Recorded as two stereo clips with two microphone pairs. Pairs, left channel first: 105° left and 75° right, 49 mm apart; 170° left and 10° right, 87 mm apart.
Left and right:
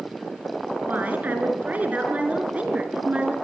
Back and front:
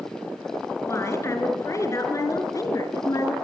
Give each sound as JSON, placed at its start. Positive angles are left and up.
{"t": 0.8, "sound": "a woman speaking", "azimuth_deg": -130, "distance_m": 7.0}